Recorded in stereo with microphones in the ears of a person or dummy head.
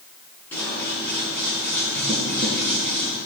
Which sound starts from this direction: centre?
Scissors, at 0.5 s.